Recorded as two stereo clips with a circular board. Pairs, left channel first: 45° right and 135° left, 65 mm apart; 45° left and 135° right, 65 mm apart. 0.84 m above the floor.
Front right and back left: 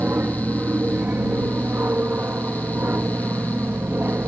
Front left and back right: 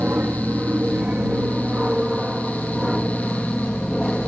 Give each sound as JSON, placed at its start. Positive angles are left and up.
{"t": 0.0, "sound": "an aircraft", "azimuth_deg": 175}